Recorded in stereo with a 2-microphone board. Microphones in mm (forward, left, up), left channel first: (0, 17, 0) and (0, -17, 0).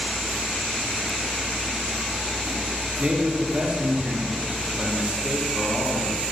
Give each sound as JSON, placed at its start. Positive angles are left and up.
{"t": 3.0, "sound": "a man speaking", "side_deg": -50, "distance_m": 4.5}